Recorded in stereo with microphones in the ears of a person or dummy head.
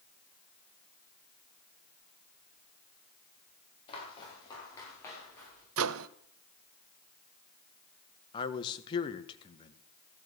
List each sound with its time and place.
3.9 s footsteps: 35° left (ahead or behind), 7.5 m; by 5.7 s 15° left (ahead or behind), 9 m
5.8 s a microwave: 75° right (ahead or behind), 0.6 m
8.3 s a man speaking: 30° left (ahead or behind), 1.5 m